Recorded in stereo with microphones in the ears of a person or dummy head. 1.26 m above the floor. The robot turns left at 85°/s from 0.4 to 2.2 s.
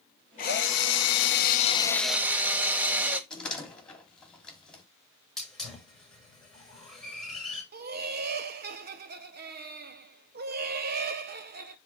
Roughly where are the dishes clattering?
I don't hear dishes clattering.